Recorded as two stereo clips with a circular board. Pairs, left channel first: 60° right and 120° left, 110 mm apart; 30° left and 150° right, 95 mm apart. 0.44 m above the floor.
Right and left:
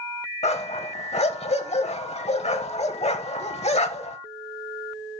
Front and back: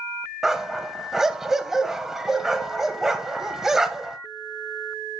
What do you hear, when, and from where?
0.4 s a dog barking: 65° right, 0.8 m